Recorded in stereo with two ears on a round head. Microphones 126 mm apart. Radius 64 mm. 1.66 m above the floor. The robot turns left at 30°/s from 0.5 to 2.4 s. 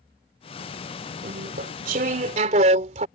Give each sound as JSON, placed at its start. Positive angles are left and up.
{"t": 1.2, "sound": "chewing", "azimuth_deg": -85}